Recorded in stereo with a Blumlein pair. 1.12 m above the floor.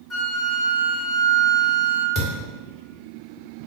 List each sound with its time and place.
0.1 s a flute: 20° left, 0.9 m
2.1 s a thud: 30° left, 1.2 m